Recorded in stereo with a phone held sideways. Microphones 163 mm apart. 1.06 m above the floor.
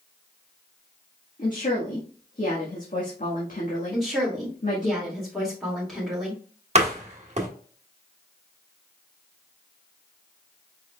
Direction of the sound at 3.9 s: Centre (ahead or behind).